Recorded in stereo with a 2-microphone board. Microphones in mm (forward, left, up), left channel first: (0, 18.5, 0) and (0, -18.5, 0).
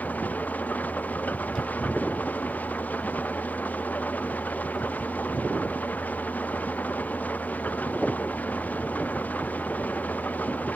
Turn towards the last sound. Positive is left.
turn(degrees=50)  # may be behind; listen again after turning